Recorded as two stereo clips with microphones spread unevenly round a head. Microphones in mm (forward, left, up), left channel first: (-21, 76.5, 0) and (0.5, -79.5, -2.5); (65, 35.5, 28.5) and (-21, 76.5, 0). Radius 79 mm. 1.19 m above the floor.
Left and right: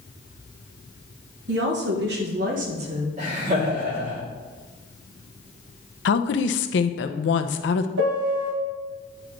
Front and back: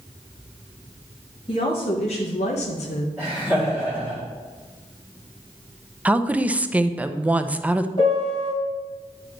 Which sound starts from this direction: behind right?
Laughter, at 3.2 s.